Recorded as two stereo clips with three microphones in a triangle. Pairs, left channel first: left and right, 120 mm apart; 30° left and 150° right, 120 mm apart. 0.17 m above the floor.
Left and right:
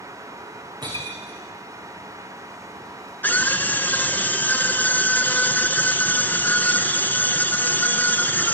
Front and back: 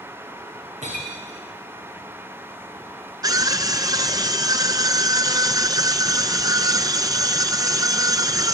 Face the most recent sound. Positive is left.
turn(degrees=160)